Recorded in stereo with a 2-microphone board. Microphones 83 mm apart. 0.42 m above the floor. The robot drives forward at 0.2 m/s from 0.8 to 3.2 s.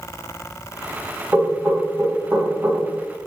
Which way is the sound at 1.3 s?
25° right (ahead or behind).